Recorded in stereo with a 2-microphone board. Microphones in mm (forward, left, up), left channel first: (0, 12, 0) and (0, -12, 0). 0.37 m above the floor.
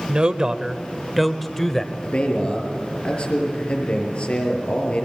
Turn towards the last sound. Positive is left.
turn(degrees=50)  # may be behind; listen again after turning